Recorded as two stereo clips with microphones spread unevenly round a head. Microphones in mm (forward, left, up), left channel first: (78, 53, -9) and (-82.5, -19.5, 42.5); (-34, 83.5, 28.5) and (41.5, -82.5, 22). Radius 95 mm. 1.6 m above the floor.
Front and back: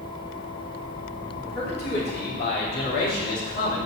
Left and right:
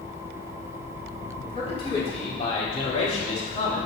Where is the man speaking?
55° left, 3.5 m; by 3.9 s 65° left, 2 m.